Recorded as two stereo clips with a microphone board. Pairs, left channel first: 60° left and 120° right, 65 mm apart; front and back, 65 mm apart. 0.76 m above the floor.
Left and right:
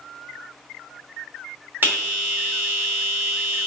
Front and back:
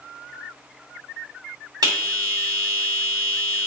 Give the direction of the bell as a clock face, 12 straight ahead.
6 o'clock.